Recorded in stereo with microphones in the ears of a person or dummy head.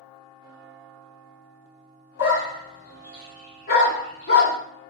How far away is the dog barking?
About 1.7 m.